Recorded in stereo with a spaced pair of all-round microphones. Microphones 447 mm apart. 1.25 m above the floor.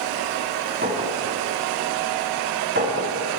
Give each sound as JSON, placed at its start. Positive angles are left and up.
{"t": 0.8, "sound": "a clink", "side_deg": -25, "distance_m": 6.0}